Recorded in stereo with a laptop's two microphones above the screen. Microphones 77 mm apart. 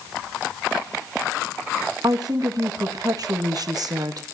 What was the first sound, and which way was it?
A woman speaking, 55° right (ahead or behind).